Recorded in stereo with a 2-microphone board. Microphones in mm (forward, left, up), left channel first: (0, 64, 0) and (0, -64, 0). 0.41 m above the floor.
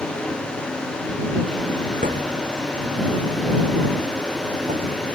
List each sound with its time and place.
2.0 s a thud: 90° right